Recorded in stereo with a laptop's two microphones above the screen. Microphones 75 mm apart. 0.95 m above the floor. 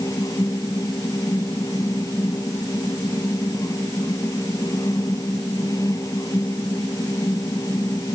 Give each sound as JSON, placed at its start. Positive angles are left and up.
{"t": 0.0, "sound": "a fan", "side_deg": 50}